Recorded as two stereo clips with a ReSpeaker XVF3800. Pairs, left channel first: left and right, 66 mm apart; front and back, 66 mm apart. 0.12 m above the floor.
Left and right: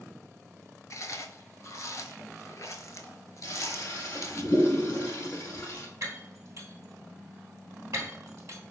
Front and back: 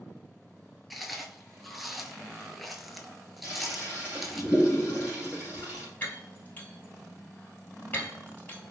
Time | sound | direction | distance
0.9 | chewing | 90° left | 0.6 m
3.4 | a toilet flushing | 115° left | 1.7 m
6.0 | breaking glass | 60° right | 1.6 m